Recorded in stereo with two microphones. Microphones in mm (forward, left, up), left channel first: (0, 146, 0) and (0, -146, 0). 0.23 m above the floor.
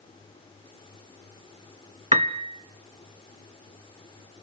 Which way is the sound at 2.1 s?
25° right (ahead or behind).